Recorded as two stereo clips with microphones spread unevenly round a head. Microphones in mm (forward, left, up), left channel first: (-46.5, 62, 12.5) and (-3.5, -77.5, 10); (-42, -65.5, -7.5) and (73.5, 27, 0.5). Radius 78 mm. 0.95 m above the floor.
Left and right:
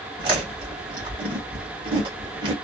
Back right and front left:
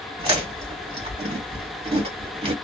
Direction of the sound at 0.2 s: 10° right.